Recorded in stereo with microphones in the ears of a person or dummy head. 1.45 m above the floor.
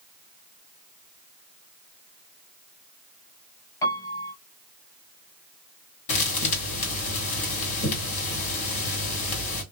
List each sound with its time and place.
3.8 s a piano: 15° left (ahead or behind), 0.7 m
6.1 s a thud: 40° left (ahead or behind), 1.8 m